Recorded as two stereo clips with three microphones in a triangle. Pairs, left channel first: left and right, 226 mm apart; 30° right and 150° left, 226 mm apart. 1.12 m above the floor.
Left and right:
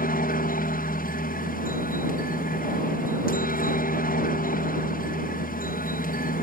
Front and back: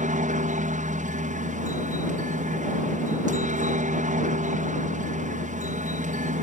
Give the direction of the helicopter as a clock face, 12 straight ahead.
8 o'clock.